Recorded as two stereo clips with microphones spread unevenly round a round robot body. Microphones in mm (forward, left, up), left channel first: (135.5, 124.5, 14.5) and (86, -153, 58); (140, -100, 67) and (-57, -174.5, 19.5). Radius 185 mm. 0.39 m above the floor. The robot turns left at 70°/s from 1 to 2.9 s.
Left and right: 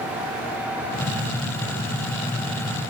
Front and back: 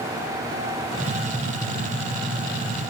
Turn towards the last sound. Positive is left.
No sound to turn to.